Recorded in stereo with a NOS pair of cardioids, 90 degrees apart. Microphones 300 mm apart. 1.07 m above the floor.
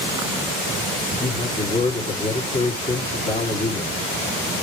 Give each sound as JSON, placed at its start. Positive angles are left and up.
{"t": 1.2, "sound": "a man speaking", "azimuth_deg": 20, "distance_m": 3.0}